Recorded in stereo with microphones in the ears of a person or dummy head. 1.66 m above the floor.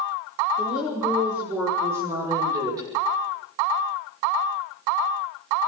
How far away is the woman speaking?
About 5.5 m.